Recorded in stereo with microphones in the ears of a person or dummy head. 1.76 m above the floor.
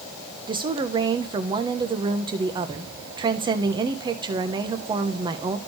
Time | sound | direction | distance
0.5 | a woman speaking | 25° right (ahead or behind) | 0.9 m